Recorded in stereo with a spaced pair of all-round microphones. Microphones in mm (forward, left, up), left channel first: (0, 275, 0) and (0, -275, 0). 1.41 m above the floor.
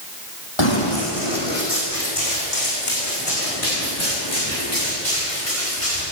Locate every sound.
0.6 s running footsteps: 50° left (ahead or behind), 3 m; by 6.0 s 70° left (ahead or behind), 9.5 m